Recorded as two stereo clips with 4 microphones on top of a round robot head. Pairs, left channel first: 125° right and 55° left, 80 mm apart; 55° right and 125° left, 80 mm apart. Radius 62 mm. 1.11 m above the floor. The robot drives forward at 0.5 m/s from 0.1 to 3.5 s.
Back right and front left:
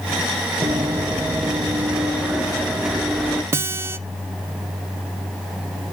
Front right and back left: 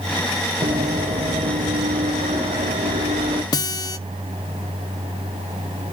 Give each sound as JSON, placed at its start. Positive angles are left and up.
{"t": 0.6, "sound": "running footsteps", "azimuth_deg": 105, "distance_m": 1.7}
{"t": 3.5, "sound": "a guitar", "azimuth_deg": -10, "distance_m": 0.7}